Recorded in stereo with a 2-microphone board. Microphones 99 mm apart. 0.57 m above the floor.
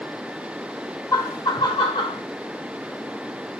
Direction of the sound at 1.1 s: 35° left (ahead or behind).